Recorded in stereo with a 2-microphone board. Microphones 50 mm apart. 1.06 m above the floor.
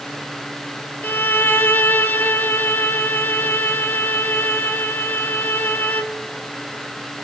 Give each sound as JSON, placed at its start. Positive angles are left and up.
{"t": 1.0, "sound": "a violin", "side_deg": 45, "distance_m": 1.4}